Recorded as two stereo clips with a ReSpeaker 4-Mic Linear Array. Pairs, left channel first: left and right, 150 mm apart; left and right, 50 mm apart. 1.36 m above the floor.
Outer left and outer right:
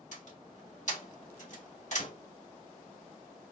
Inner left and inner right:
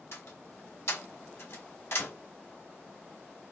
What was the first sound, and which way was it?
A door slam, 55° left (ahead or behind).